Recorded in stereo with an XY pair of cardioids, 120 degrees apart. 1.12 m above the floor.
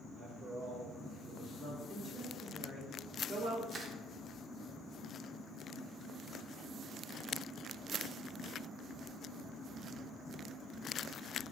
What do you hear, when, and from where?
0.1 s a man speaking: 50° right, 1.2 m; by 1.8 s 45° right, 2 m
1.9 s a woman speaking: 55° right, 1.4 m
3.7 s crushing: 45° right, 0.7 m